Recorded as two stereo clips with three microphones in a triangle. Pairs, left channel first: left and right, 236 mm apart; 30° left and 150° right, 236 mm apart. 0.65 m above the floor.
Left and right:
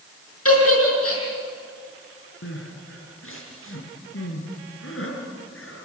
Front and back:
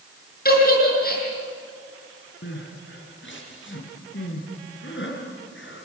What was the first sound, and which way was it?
A giggle, 80° left.